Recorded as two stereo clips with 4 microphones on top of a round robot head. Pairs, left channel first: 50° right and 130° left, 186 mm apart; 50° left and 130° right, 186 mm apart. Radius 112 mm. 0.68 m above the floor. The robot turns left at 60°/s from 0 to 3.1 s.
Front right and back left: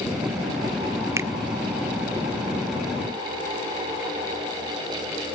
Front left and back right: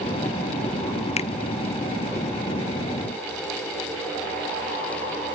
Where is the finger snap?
70° left, 0.6 m; by 1.3 s 60° left, 0.6 m.